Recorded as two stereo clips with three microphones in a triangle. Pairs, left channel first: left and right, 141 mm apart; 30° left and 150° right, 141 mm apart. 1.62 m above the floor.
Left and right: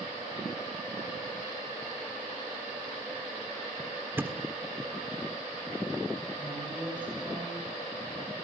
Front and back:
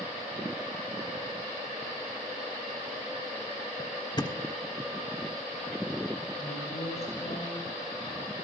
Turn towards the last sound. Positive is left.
turn(degrees=-10)